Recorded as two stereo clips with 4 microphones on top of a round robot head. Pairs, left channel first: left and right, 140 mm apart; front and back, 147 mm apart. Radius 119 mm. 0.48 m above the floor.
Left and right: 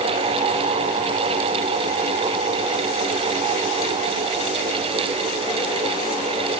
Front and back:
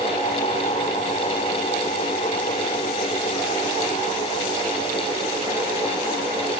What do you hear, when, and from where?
Only background noise.